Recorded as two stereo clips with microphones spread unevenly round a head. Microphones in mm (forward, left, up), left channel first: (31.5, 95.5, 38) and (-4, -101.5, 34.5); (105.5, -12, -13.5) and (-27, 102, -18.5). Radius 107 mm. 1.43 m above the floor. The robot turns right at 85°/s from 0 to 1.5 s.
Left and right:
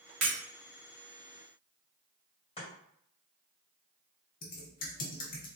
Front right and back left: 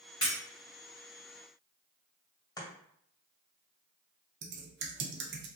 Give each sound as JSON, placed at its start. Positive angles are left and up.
{"t": 0.2, "sound": "breaking glass", "azimuth_deg": -115, "distance_m": 1.8}
{"t": 2.6, "sound": "chopping", "azimuth_deg": 20, "distance_m": 1.9}
{"t": 4.4, "sound": "typing on a keyboard", "azimuth_deg": 130, "distance_m": 0.7}